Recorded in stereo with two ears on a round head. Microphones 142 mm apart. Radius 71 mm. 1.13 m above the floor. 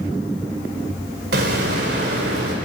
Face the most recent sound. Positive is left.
turn(degrees=-70)  # may be behind; listen again after turning